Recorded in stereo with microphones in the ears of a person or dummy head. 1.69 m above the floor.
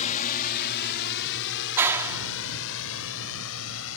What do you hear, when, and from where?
0.0 s a drone: 45° left (ahead or behind); by 4.0 s 85° left
1.8 s a clap: 15° right (ahead or behind)